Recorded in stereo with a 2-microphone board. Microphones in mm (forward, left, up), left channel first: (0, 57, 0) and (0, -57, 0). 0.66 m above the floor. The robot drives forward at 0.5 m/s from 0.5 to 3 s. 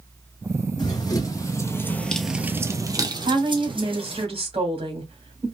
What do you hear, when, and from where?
0.8 s running footsteps: 40° left (ahead or behind), 1.6 m; by 4.2 s 55° right (ahead or behind), 1.7 m
3.2 s a woman speaking: 60° right (ahead or behind), 2 m